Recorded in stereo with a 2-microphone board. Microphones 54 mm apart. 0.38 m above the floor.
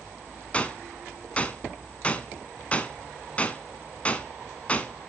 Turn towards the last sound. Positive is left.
turn(degrees=25)  # may be behind; listen again after turning